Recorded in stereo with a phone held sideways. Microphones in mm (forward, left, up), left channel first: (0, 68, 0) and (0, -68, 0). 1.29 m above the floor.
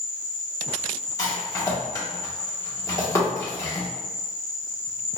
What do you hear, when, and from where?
0.0 s an insect: 60° left (ahead or behind), 1.0 m
1.2 s a rattle: 25° left (ahead or behind), 0.9 m